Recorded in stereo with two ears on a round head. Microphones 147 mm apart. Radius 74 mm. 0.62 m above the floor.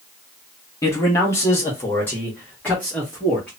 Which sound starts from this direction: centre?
A man speaking, at 0.8 s.